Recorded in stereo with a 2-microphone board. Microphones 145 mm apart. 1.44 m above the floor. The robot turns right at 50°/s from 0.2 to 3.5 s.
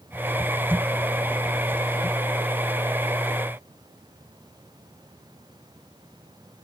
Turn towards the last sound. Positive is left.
No sound to turn to.